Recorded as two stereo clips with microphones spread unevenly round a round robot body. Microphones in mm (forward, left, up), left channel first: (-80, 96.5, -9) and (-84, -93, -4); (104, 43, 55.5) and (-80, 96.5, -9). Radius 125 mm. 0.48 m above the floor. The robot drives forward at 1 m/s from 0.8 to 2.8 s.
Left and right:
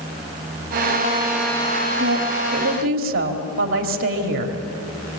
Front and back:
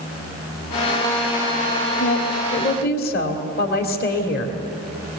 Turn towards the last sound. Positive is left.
turn(degrees=-75)